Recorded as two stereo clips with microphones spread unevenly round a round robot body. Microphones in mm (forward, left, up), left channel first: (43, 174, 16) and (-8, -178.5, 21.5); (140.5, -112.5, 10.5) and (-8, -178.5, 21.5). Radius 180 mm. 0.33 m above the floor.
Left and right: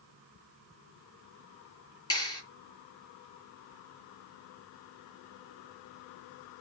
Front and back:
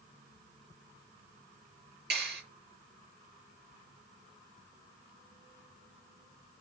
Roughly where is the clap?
Behind.